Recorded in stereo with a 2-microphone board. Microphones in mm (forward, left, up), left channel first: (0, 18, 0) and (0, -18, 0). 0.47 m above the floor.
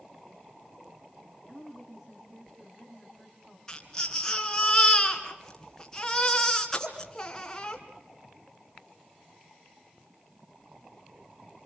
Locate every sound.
1.5 s a woman speaking: 15° right (ahead or behind), 4.5 m
3.7 s a baby crying: 15° left (ahead or behind), 3 m